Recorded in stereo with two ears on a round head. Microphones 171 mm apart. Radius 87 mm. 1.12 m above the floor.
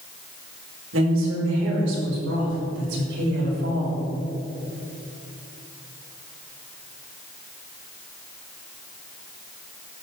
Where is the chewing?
I don't hear chewing.